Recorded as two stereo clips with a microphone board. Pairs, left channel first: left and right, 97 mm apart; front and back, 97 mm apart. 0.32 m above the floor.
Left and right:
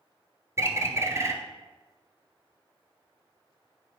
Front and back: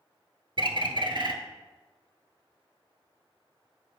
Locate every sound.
0.6 s a bird: 150° right, 0.8 m